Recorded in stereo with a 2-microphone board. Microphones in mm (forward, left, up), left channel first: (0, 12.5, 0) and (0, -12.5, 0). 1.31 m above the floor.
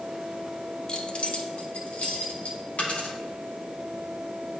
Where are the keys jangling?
35° left (ahead or behind), 0.5 m; by 2.6 s 70° left (ahead or behind), 1.4 m.